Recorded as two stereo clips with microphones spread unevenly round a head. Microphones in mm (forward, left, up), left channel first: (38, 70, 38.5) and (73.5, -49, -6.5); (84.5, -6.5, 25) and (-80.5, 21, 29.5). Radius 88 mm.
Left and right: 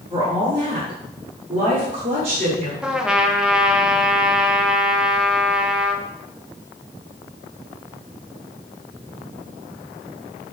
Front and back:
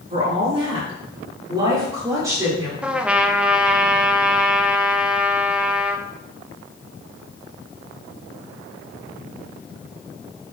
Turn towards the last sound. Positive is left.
turn(degrees=-110)